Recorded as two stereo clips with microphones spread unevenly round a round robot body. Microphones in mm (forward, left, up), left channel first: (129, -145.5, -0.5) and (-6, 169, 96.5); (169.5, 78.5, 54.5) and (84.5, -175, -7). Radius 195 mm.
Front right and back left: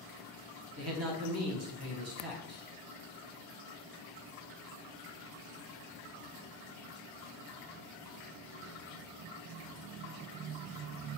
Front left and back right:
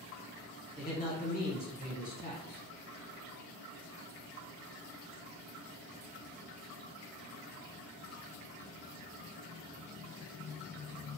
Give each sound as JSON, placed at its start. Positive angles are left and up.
{"t": 0.8, "sound": "a man speaking", "azimuth_deg": 115, "distance_m": 1.1}